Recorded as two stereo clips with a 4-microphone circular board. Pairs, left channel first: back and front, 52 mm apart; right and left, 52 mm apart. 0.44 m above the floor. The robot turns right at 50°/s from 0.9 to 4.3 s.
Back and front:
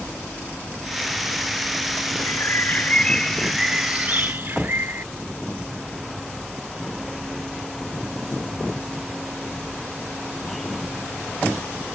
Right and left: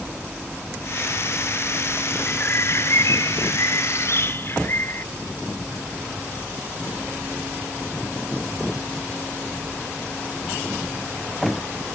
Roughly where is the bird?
Behind right.